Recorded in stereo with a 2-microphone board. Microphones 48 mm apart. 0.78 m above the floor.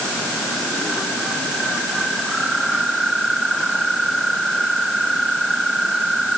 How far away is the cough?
I don't hear a cough.